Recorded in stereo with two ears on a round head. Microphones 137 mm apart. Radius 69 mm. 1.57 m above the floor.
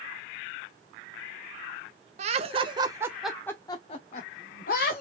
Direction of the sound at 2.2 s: 50° right (ahead or behind).